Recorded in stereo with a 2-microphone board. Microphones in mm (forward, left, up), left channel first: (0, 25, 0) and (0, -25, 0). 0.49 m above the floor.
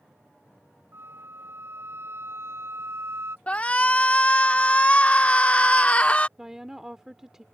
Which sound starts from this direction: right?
A flute, at 0.9 s.